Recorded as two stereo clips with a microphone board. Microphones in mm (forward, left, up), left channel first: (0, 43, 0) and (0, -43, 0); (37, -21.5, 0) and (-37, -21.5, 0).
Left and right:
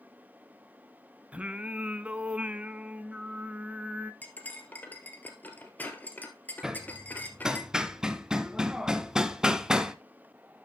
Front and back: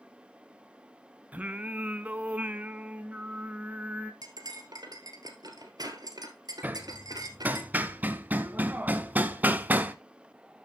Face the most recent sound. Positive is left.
turn(degrees=-160)